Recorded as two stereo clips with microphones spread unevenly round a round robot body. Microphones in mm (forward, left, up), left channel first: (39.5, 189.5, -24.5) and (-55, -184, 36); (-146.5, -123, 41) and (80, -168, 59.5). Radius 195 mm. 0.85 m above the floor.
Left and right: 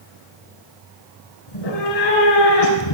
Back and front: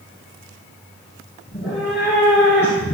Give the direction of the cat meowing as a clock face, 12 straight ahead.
9 o'clock.